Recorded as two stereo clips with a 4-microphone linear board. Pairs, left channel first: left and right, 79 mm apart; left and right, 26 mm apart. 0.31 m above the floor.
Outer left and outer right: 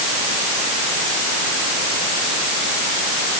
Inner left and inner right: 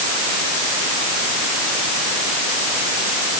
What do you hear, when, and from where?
Only background noise.